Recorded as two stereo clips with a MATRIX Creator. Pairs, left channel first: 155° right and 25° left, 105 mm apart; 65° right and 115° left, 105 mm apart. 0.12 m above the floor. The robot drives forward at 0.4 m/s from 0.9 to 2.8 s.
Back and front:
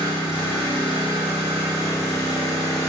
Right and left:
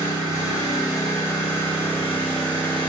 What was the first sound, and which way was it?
An engine running, 125° right.